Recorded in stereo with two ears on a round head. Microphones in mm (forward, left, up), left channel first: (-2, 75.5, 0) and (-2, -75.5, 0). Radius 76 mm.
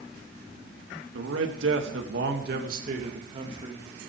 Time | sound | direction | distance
1.1 | a man speaking | 80° right | 3 m